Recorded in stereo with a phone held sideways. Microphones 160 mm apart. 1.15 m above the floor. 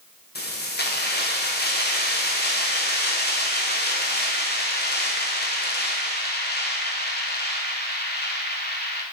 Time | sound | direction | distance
0.3 | keys jangling | 80° left | 0.6 m